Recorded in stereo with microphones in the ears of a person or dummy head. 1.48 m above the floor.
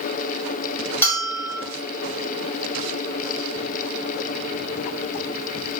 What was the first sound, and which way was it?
A bell, 10° left (ahead or behind).